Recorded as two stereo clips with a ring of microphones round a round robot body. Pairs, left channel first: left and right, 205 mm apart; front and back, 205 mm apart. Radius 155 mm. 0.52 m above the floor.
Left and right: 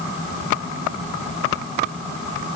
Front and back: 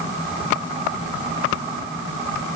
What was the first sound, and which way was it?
Only background noise.